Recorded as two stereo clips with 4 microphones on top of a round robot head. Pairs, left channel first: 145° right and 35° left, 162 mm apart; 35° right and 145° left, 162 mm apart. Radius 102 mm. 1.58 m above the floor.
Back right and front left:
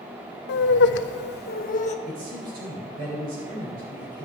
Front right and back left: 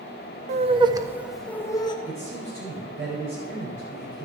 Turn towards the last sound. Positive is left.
turn(degrees=70)